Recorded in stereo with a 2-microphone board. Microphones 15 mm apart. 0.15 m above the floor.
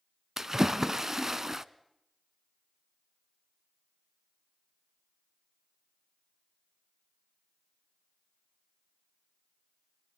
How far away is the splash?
About 0.7 m.